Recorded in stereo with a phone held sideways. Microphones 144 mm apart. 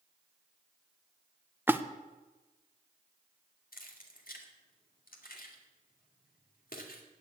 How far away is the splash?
About 0.7 m.